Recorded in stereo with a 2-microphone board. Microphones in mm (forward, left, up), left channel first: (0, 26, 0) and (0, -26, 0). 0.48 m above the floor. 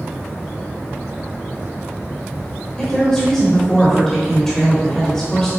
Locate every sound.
2.8 s a woman speaking: 10° left (ahead or behind), 1.8 m